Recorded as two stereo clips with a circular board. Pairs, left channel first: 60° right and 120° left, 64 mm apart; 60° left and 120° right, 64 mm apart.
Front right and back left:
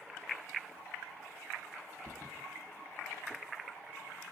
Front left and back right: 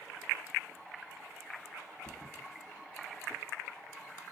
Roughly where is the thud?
Ahead left.